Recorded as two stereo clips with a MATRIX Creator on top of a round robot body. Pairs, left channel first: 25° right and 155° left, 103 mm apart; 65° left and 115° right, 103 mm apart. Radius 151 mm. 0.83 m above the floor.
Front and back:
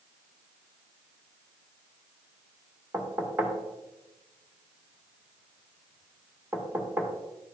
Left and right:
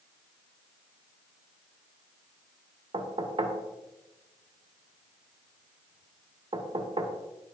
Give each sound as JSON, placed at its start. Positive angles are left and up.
{"t": 2.9, "sound": "knocking", "azimuth_deg": -135, "distance_m": 1.8}